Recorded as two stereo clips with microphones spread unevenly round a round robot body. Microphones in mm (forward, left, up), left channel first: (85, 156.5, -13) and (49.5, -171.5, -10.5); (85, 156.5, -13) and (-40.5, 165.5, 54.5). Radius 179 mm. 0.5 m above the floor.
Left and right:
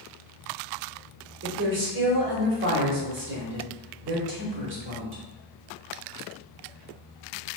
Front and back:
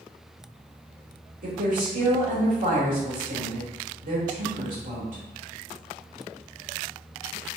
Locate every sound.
1.4 s a woman speaking: 140° right, 1.0 m